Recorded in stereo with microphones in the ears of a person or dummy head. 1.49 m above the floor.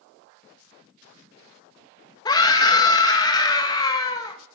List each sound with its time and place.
2.2 s a scream: 25° left (ahead or behind), 1.4 m